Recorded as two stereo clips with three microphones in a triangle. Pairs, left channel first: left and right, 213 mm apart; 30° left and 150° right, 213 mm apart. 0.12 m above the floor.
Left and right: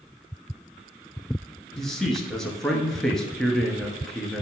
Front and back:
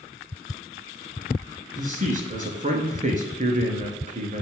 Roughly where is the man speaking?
Behind.